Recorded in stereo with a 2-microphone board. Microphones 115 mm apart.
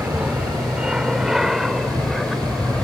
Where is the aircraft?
10° right (ahead or behind); by 2.8 s 5° left (ahead or behind).